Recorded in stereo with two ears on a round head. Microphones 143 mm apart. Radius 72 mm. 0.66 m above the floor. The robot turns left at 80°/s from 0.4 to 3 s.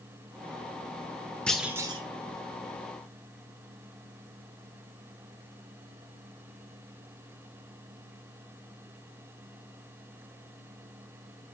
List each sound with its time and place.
1.5 s a clunk: 5° left, 1.4 m; by 2.0 s 35° right, 1.4 m